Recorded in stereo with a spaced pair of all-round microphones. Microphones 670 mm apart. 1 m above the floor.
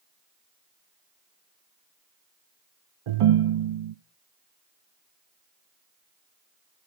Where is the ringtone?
55° right (ahead or behind), 0.6 m.